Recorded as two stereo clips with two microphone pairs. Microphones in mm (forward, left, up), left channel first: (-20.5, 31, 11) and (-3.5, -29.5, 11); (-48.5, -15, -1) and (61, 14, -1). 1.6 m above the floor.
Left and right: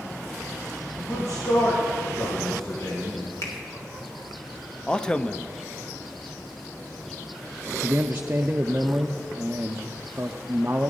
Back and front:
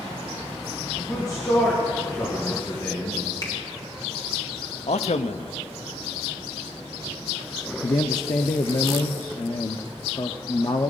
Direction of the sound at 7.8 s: 130° right.